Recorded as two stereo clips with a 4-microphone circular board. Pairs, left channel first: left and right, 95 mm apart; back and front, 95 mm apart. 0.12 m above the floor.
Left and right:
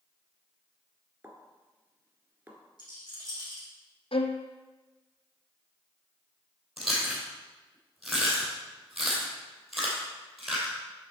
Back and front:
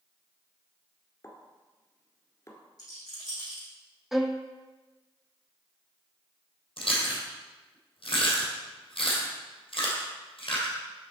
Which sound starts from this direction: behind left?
A rattle, at 2.8 s.